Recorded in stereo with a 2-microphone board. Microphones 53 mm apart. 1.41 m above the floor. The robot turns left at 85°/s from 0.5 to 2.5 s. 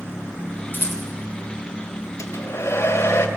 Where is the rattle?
40° left (ahead or behind), 3 m; by 1.0 s 60° left (ahead or behind), 3 m.